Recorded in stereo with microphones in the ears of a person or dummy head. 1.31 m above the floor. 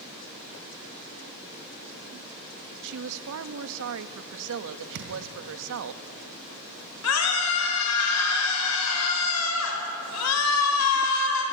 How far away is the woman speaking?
About 1.3 m.